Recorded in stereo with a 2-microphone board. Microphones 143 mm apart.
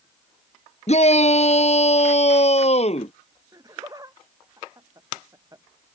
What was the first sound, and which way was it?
A shout, 50° left (ahead or behind).